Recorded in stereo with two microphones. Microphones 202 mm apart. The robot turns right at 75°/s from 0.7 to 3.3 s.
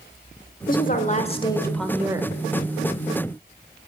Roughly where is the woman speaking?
Left.